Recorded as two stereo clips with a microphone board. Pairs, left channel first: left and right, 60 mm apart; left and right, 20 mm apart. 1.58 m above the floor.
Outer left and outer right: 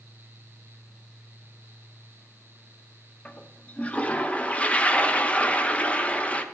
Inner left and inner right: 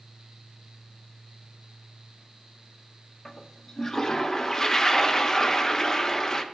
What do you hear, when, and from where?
3.2 s a toilet flushing: 20° left (ahead or behind), 0.5 m